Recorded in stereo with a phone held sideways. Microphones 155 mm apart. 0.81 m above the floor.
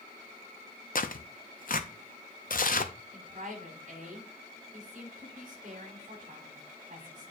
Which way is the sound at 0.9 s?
65° left (ahead or behind).